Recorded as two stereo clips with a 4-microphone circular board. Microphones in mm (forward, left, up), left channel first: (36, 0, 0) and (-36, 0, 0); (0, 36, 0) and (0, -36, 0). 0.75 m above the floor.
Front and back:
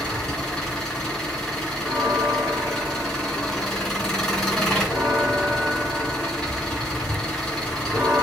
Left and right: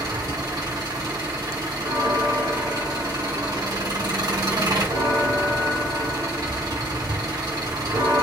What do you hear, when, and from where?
0.0 s an engine running: 85° right, 3 m
1.8 s a bell: 115° right, 2.5 m